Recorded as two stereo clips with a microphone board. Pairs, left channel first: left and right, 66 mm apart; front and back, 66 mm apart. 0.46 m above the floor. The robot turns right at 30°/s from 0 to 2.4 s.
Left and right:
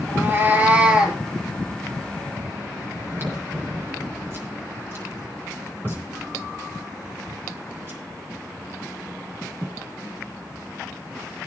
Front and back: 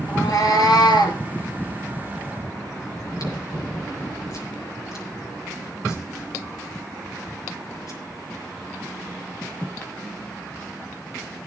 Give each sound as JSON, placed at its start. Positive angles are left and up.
{"t": 0.1, "sound": "a cat meowing", "azimuth_deg": -45, "distance_m": 4.0}
{"t": 3.0, "sound": "chewing", "azimuth_deg": -35, "distance_m": 6.5}